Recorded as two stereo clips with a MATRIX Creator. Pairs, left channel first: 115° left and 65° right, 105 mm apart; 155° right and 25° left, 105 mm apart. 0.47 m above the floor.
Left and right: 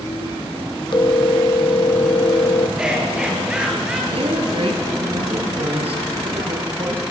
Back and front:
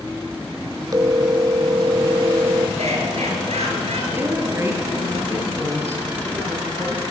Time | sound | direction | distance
0.9 | a phone ringing | 75° left | 0.6 m
2.8 | laughter | 15° left | 9.5 m
4.1 | a woman speaking | 45° right | 8.5 m